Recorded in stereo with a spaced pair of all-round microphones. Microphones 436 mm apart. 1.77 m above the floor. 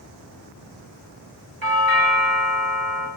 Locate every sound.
1.6 s a doorbell: 45° right (ahead or behind), 3 m